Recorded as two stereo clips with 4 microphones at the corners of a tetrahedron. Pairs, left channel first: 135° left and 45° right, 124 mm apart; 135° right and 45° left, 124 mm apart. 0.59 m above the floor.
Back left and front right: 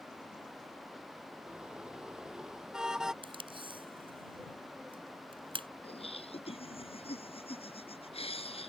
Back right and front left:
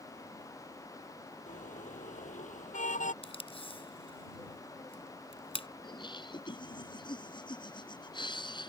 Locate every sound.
1.5 s a car horn: 130° right
3.2 s tape being pulled: 90° right
5.8 s laughter: 175° left